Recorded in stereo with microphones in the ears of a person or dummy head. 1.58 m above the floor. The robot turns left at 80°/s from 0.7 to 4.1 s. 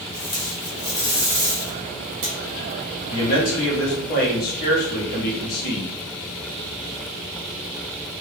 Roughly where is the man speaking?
Behind left.